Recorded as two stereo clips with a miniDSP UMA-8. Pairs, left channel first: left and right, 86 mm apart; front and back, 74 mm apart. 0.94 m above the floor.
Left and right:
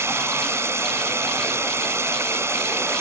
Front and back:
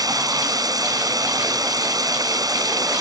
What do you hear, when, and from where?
0.0 s running water: 150° right